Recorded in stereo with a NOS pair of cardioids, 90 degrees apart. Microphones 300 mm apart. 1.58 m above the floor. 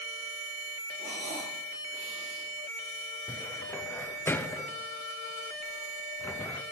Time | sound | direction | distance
1.0 | breathing | 25° right | 4 m
3.3 | a cupboard door | 5° left | 0.6 m